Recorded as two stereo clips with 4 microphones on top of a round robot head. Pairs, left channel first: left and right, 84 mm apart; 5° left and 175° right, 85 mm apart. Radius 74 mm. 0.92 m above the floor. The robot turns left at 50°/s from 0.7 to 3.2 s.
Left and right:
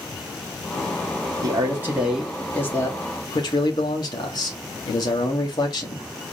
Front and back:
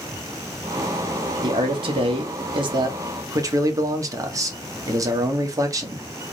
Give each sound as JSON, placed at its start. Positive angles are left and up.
{"t": 1.4, "sound": "a man speaking", "azimuth_deg": -140, "distance_m": 1.4}